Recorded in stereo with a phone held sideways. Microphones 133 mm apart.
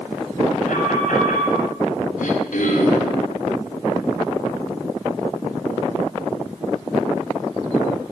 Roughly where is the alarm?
Left.